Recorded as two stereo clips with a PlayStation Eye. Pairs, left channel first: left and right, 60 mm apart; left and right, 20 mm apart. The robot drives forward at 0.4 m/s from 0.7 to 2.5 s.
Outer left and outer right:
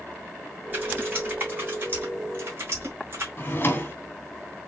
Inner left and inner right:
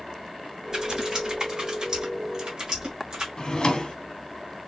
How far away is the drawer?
About 0.8 m.